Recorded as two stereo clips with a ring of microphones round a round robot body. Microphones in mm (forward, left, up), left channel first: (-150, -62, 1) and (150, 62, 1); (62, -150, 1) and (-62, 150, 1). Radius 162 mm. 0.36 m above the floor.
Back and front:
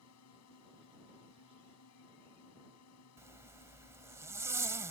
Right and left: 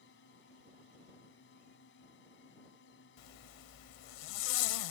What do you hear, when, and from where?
0.0 s a drone: 120° right
3.2 s a zipper: 60° right